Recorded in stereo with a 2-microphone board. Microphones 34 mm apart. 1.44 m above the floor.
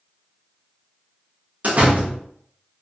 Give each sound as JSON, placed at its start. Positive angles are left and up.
{"t": 1.6, "sound": "a door slam", "side_deg": -50, "distance_m": 0.6}